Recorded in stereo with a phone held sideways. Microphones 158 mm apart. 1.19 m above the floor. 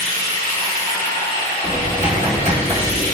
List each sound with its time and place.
0.0 s running water: 70° left (ahead or behind), 2.0 m
1.6 s typing on a keyboard: 45° right (ahead or behind), 0.8 m